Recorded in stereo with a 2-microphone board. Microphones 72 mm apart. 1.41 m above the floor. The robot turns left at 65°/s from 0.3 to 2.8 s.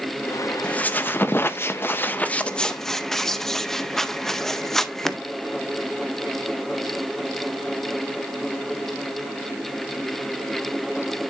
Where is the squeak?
150° left, 0.7 m; by 5.2 s 10° left, 0.7 m.